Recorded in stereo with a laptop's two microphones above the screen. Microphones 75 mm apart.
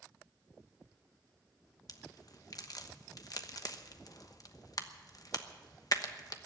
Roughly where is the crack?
Left.